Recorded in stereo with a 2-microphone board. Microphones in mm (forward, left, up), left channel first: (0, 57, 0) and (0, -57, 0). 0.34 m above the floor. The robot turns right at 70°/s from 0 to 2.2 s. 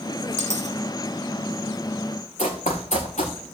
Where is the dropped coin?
80° right, 2.5 m; by 0.8 s 75° right (ahead or behind), 2.5 m.